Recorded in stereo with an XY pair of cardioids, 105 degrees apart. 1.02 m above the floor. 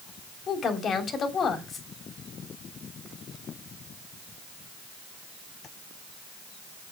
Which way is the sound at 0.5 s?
50° left.